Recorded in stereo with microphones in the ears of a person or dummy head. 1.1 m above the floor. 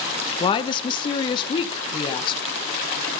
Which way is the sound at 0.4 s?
25° left (ahead or behind).